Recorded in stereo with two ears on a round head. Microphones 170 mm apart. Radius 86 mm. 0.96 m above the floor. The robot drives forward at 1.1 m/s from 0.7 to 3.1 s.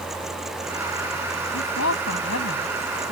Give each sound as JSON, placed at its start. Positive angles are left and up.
{"t": 1.5, "sound": "a woman speaking", "side_deg": 85}